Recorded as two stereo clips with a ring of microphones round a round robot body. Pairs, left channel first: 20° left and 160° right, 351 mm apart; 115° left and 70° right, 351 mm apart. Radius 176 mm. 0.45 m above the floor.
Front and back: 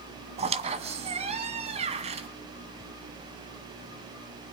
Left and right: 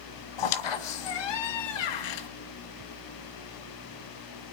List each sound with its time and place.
0.4 s a squeak: 130° left, 1.6 m